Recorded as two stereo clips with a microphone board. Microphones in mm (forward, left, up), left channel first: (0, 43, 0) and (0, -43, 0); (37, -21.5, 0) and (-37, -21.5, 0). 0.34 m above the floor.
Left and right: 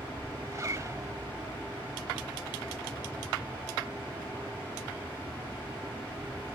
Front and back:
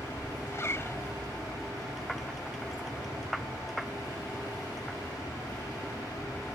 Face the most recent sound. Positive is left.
turn(degrees=-45)